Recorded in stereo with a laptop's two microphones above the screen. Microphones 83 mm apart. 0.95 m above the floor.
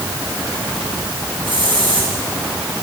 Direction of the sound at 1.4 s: 85° right.